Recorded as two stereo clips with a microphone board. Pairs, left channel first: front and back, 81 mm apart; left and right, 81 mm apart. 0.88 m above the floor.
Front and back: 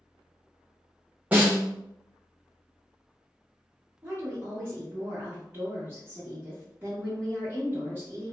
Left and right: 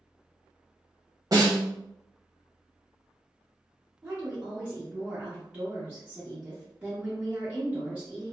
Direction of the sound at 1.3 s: 110° right.